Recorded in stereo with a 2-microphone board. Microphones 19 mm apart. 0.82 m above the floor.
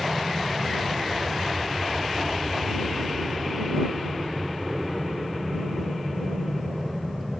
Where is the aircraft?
55° right (ahead or behind); by 7.4 s 30° left (ahead or behind).